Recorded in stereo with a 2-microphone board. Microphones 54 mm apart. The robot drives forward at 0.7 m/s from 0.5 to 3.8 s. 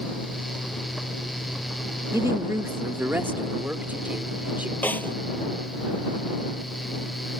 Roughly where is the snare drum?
Left.